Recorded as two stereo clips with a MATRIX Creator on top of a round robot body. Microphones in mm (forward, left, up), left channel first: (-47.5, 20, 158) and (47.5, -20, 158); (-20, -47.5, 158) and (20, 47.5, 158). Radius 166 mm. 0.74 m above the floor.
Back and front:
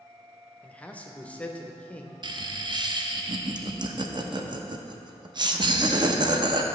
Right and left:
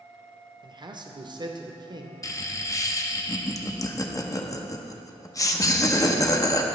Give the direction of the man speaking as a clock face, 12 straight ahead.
9 o'clock.